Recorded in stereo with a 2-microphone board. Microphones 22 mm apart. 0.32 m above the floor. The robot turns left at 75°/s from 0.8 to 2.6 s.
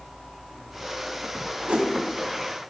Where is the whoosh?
70° right (ahead or behind), 0.8 m; by 1.9 s 60° right (ahead or behind), 0.8 m.